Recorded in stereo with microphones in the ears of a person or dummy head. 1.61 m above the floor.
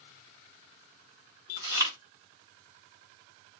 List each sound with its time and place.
1.6 s chewing: 20° right (ahead or behind), 2 m